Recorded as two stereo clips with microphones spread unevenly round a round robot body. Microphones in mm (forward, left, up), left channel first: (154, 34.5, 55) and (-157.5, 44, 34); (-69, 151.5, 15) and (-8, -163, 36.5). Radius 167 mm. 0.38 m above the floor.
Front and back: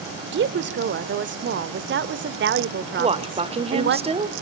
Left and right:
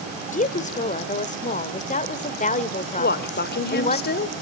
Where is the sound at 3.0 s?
125° left, 1.5 m.